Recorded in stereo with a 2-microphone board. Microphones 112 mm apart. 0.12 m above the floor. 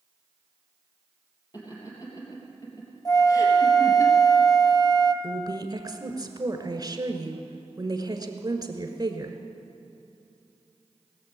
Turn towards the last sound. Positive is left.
turn(degrees=-35)  # may be behind; listen again after turning